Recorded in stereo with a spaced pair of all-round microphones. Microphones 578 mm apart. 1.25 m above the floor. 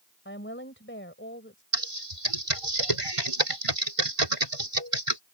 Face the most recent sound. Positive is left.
turn(degrees=-65)  # may be behind; listen again after turning